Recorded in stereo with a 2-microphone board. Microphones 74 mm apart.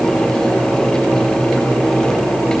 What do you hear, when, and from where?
Only background noise.